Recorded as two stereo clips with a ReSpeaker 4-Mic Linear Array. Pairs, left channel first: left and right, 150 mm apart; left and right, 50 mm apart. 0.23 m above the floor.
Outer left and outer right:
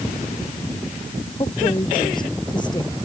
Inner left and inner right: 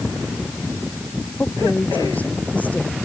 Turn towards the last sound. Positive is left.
turn(degrees=30)  # may be behind; listen again after turning